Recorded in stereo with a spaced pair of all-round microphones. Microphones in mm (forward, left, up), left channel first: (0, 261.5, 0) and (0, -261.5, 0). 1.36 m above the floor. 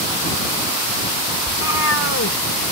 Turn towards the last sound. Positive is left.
turn(degrees=30)  # may be behind; listen again after turning